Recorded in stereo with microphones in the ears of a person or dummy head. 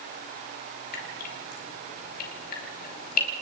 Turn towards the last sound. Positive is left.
turn(degrees=50)  # may be behind; listen again after turning